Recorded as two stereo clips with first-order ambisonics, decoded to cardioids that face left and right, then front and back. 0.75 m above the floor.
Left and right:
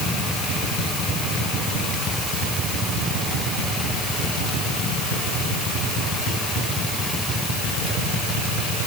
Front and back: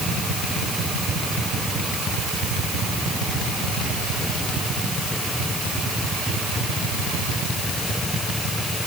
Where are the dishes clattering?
I don't hear dishes clattering.